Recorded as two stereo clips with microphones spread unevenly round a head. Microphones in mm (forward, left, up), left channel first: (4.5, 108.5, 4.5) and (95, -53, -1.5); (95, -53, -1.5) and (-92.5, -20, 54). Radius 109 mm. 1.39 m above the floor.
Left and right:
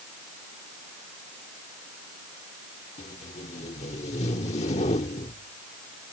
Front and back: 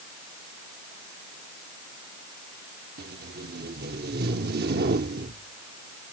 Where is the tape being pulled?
175° left.